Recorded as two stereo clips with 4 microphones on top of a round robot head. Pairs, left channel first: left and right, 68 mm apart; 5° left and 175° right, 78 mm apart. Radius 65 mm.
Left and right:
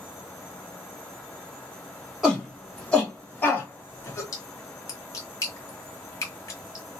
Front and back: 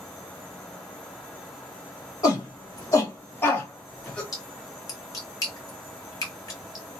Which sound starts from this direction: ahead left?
A splash, at 4.3 s.